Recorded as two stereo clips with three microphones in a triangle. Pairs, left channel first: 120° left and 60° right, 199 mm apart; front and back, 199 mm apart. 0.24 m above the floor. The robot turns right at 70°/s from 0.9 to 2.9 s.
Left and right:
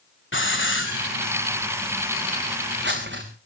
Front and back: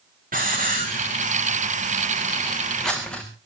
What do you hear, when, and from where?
0.3 s a hiss: 135° left, 4 m; by 3.2 s 85° right, 4 m